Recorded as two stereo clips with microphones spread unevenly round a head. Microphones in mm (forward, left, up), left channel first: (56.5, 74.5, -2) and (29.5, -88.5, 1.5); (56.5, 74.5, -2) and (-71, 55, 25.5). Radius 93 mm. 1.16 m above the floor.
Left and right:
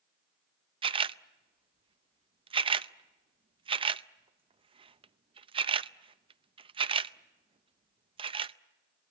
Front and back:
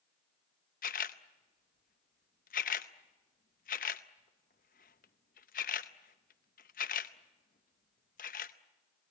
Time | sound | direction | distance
0.8 | a camera shutter | 40° right | 0.6 m